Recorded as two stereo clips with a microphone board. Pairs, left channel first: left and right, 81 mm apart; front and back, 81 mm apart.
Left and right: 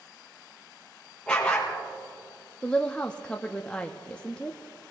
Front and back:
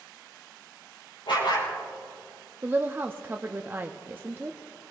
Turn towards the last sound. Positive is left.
turn(degrees=150)